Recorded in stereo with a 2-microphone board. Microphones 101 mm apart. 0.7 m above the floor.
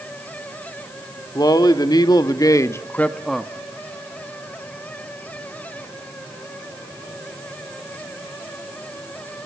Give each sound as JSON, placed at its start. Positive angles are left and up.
{"t": 1.4, "sound": "a man speaking", "side_deg": 40, "distance_m": 1.9}